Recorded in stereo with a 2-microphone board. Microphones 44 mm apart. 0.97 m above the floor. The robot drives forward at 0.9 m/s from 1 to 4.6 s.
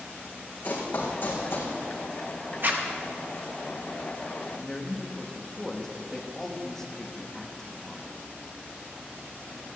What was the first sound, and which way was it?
Running footsteps, 50° left (ahead or behind).